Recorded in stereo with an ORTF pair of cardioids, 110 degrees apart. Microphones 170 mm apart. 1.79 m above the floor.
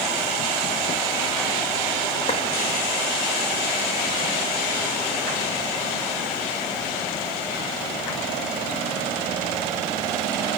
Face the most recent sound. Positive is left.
turn(degrees=35)